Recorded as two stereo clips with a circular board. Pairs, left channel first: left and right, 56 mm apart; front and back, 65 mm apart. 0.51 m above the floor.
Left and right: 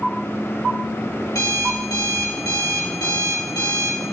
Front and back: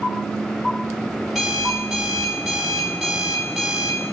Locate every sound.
1.3 s an alarm clock: 95° left, 1.5 m